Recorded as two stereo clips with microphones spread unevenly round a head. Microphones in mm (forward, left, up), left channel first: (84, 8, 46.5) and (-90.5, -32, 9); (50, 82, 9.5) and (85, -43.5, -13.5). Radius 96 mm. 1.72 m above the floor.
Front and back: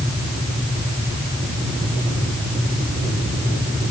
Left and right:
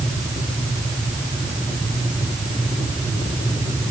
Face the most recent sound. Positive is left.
No sound to turn to.